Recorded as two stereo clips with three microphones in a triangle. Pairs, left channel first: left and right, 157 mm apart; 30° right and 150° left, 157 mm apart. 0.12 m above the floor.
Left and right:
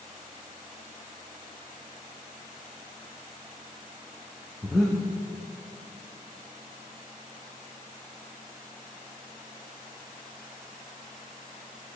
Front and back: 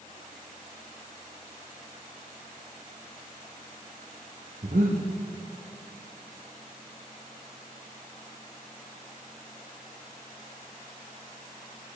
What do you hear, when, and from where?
4.6 s breathing: straight behind, 2 m